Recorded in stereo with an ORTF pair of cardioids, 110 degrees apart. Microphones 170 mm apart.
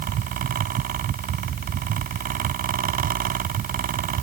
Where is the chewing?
I don't hear chewing.